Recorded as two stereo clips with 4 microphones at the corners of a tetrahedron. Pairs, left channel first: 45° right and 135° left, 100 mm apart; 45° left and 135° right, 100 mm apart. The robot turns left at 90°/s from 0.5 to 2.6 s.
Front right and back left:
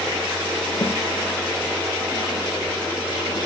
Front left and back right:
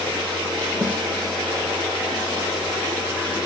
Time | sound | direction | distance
0.8 | a snare drum | 65° right | 1.9 m